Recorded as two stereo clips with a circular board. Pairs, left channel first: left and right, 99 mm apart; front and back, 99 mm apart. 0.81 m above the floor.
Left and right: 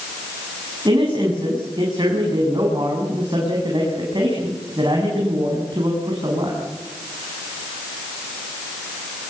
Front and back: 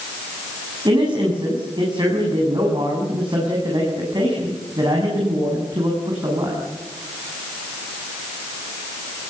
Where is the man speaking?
135° right, 8 m.